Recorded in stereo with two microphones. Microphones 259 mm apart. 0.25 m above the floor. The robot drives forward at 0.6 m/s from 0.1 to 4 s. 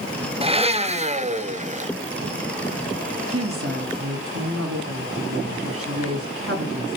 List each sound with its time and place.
0.4 s a blender: 20° right (ahead or behind), 1.3 m; by 1.9 s 30° right (ahead or behind), 1.1 m
3.3 s a woman speaking: 60° right (ahead or behind), 3 m